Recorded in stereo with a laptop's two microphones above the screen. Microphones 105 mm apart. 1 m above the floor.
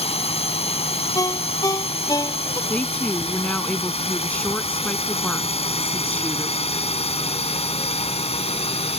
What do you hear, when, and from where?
0.0 s a drone: 70° left (ahead or behind); by 9.0 s 75° left (ahead or behind)
1.1 s a ringtone: 35° left (ahead or behind)
2.7 s a woman speaking: 10° left (ahead or behind)